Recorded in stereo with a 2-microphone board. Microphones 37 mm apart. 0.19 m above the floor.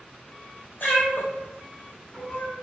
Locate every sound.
0.8 s a cat meowing: 70° left (ahead or behind), 1.5 m; by 2.5 s 25° left (ahead or behind), 0.8 m